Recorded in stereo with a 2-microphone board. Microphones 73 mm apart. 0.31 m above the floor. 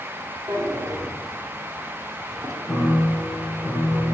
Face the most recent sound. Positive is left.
turn(degrees=5)  # may be behind; listen again after turning